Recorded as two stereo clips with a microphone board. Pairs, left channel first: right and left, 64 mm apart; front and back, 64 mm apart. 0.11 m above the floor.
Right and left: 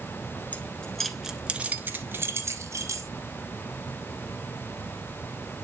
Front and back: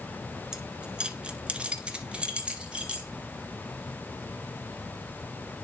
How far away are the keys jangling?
About 0.8 m.